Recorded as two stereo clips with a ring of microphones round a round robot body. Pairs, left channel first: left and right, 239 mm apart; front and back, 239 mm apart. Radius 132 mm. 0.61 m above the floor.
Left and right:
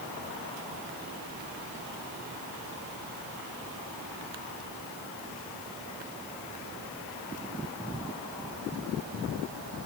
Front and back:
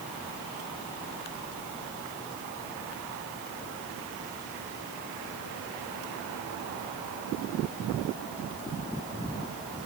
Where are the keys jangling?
I don't hear keys jangling.